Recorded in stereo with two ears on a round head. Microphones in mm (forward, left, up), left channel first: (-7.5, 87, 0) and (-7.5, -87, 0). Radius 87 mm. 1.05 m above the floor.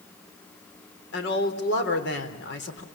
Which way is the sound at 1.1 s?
55° left (ahead or behind).